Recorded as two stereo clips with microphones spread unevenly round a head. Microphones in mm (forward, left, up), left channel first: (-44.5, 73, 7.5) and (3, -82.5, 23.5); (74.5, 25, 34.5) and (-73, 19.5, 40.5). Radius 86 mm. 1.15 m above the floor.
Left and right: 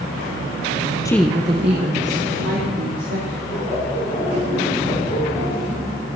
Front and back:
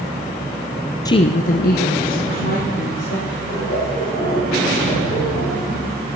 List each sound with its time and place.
1.1 s a woman speaking: 55° left, 0.6 m; by 3.4 s 35° right, 3.5 m
3.5 s laughter: 30° left, 6.5 m